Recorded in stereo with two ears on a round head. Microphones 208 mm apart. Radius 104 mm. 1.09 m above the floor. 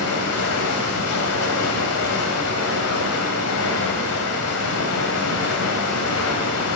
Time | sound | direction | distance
0.0 | running water | 75° left (ahead or behind) | 2 m